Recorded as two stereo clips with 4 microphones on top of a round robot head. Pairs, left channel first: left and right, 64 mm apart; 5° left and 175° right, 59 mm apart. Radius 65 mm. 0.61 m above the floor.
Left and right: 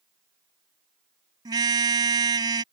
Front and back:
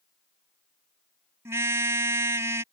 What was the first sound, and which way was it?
A car horn, 125° right.